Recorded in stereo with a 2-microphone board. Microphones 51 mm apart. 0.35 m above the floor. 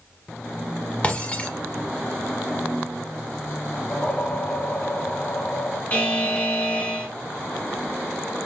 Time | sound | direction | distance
1.0 | breaking glass | 30° left (ahead or behind) | 1.2 m
3.9 | a whoosh | 30° left (ahead or behind) | 0.6 m
5.9 | a buzzer | 35° left (ahead or behind) | 0.9 m